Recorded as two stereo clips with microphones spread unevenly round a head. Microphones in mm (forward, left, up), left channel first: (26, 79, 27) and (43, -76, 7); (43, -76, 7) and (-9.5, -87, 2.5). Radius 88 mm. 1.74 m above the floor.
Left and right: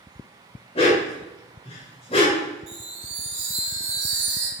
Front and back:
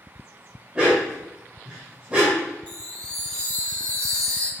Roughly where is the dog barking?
Behind left.